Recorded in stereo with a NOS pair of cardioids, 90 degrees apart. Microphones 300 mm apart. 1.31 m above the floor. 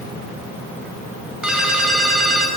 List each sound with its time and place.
1.4 s a ringtone: straight ahead, 9.5 m